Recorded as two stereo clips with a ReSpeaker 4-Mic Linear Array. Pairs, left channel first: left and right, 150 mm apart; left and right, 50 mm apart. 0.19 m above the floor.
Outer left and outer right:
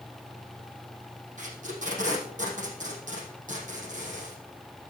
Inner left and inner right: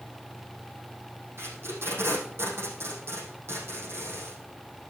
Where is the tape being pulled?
55° right (ahead or behind), 4 m.